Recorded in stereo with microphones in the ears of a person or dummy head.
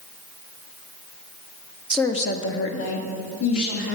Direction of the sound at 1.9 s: 5° right (ahead or behind).